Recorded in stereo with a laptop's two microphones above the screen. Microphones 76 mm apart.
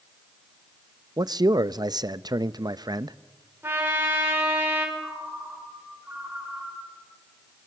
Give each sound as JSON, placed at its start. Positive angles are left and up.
{"t": 1.2, "sound": "a man speaking", "side_deg": -60, "distance_m": 0.7}
{"t": 3.6, "sound": "a trumpet", "side_deg": -30, "distance_m": 4.0}
{"t": 5.0, "sound": "a ringtone", "side_deg": -20, "distance_m": 8.5}